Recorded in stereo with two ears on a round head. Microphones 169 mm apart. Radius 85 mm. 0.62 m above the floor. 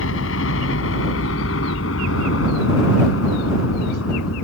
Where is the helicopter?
75° left (ahead or behind); by 4.4 s 80° left.